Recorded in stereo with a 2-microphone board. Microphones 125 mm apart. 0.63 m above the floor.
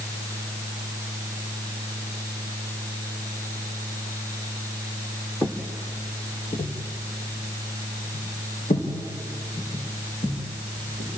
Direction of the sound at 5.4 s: 20° left (ahead or behind).